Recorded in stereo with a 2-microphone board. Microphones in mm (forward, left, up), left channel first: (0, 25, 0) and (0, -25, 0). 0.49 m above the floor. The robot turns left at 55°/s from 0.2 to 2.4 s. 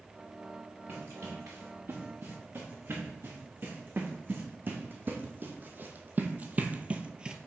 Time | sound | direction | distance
0.9 | running footsteps | 45° right (ahead or behind) | 4 m